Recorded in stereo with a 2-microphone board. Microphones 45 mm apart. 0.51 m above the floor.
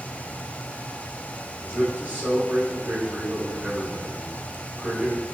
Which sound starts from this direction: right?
A man speaking, at 1.6 s.